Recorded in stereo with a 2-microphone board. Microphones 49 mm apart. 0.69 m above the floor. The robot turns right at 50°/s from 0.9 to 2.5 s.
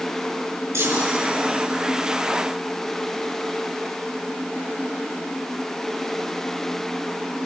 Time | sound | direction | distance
0.7 | a chime | 75° right (ahead or behind) | 5.5 m